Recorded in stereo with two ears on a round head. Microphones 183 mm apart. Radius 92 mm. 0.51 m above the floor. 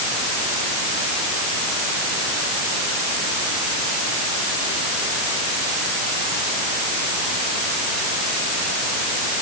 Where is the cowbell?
I don't hear a cowbell.